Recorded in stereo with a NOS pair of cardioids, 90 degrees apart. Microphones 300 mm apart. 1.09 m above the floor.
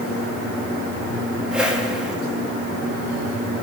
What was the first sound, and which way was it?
A whoosh, 5° right.